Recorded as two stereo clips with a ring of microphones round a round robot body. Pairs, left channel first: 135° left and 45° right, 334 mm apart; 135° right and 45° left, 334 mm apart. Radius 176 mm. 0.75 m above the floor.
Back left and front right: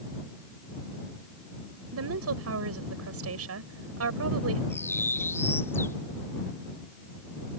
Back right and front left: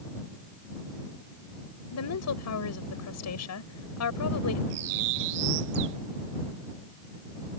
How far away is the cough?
No cough in this recording.